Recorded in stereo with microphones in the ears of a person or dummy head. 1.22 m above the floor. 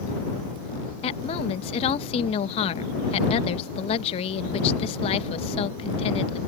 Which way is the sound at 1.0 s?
30° left (ahead or behind).